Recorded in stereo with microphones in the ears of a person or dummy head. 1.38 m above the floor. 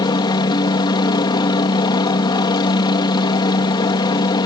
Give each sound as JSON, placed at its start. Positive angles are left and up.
{"t": 0.0, "sound": "a helicopter", "side_deg": 20}